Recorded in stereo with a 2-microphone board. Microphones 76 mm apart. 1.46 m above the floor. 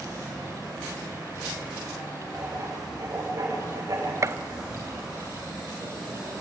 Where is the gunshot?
40° right (ahead or behind), 0.6 m.